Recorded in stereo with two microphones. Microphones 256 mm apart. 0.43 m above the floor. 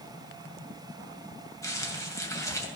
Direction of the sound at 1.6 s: 15° left (ahead or behind).